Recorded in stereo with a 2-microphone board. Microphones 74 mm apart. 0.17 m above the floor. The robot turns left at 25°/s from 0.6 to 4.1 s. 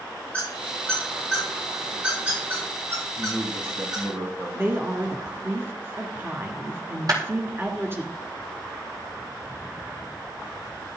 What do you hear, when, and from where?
0.3 s a squeak: 20° left (ahead or behind), 8.5 m; by 4.0 s 70° right (ahead or behind), 8.5 m
3.2 s a man speaking: 25° right (ahead or behind), 5.5 m; by 4.6 s 50° right (ahead or behind), 5.5 m
4.5 s a woman speaking: 30° right (ahead or behind), 1.8 m
7.1 s a clap: 55° right (ahead or behind), 4.5 m